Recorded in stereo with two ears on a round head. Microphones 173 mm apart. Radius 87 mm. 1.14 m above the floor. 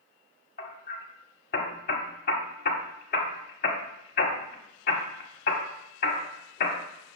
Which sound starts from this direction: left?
Hammering, at 0.6 s.